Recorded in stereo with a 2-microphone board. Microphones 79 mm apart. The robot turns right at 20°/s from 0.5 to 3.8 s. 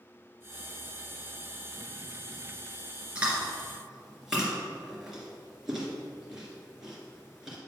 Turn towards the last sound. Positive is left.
turn(degrees=-5)  # may be behind; listen again after turning